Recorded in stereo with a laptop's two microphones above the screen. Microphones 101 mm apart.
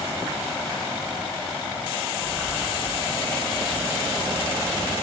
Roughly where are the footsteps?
Centre.